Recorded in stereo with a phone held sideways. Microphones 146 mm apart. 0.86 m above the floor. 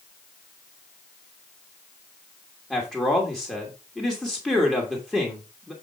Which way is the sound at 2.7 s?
5° left (ahead or behind).